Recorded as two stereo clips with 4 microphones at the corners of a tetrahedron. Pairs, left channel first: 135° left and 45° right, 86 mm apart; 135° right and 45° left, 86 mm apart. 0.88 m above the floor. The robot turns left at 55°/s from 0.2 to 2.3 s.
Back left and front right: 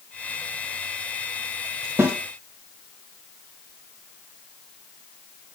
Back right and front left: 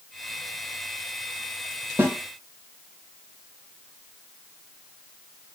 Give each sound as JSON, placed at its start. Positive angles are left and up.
{"t": 2.0, "sound": "a snare drum", "azimuth_deg": 0, "distance_m": 0.7}